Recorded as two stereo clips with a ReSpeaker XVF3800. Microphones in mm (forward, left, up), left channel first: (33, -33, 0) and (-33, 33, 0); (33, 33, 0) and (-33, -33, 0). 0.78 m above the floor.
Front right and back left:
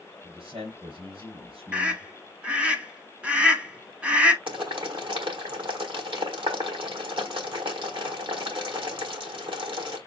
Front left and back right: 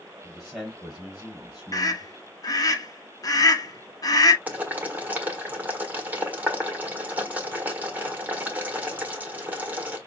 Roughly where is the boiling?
Behind left.